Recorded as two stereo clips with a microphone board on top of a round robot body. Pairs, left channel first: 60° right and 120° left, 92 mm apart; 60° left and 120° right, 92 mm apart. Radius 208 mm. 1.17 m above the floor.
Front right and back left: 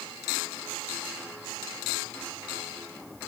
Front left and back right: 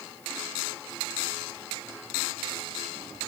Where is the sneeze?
No sneeze in this recording.